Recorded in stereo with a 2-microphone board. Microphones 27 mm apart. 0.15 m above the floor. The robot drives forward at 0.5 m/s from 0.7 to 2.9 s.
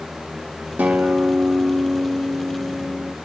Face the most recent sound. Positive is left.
turn(degrees=-50)  # may be behind; listen again after turning